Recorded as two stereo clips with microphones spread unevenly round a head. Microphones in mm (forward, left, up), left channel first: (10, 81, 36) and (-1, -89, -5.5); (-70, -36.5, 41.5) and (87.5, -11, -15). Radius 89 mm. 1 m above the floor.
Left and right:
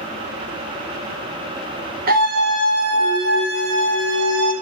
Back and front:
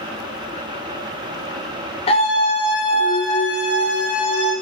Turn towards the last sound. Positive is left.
turn(degrees=-105)